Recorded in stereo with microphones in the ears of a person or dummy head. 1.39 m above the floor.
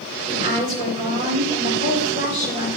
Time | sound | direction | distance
0.3 | a woman speaking | 40° right (ahead or behind) | 3.5 m